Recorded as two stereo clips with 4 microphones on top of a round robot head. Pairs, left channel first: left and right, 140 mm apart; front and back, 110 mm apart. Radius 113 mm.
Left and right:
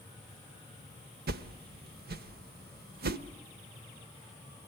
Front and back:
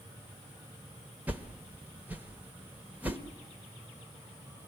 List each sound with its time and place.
1.3 s a whoosh: 100° right, 1.0 m